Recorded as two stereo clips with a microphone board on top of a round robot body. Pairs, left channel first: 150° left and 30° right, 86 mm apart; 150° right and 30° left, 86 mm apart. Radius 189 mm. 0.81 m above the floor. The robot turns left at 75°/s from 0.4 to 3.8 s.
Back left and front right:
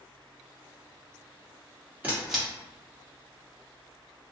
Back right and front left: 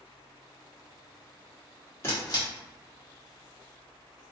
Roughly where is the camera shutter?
Right.